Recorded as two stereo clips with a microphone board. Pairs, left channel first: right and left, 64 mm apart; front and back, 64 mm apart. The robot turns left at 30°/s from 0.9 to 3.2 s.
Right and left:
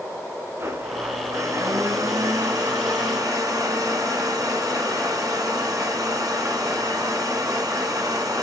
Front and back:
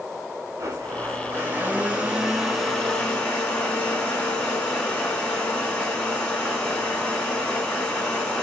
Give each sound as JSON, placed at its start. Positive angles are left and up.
{"t": 0.6, "sound": "a blender", "azimuth_deg": 135, "distance_m": 2.5}